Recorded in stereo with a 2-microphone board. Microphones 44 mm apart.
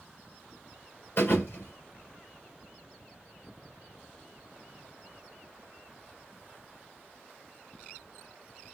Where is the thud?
60° left (ahead or behind), 3 m.